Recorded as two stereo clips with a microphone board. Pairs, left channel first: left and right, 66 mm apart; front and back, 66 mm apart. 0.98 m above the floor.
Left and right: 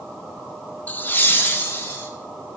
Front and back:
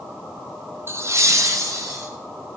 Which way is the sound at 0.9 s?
150° left.